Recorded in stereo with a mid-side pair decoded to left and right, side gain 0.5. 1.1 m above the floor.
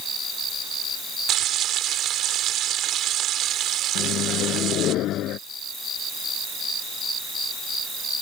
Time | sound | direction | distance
1.3 | frying | 65° right | ?
4.0 | a microwave | 70° left | ?